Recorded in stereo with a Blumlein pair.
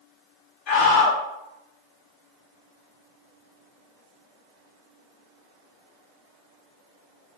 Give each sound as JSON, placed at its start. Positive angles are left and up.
{"t": 0.7, "sound": "a scream", "azimuth_deg": 35, "distance_m": 1.0}